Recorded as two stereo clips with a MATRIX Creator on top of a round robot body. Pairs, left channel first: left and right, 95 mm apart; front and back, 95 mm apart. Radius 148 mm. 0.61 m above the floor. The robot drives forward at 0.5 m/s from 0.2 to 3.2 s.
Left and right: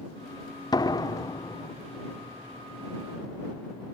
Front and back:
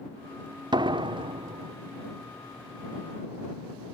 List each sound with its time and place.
0.7 s a door slam: 140° left; by 1.7 s 150° left